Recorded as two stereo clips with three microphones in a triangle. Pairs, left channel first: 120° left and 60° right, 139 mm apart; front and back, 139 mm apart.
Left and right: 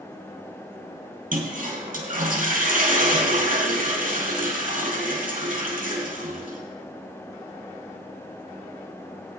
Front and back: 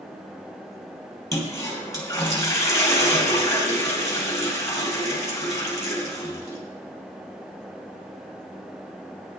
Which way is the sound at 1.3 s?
65° right.